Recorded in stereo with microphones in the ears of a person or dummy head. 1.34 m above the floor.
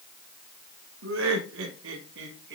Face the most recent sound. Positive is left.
turn(degrees=-70)  # may be behind; listen again after turning